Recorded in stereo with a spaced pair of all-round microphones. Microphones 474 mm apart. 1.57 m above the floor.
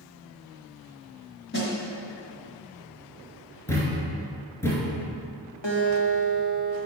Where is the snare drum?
25° left (ahead or behind), 1.6 m.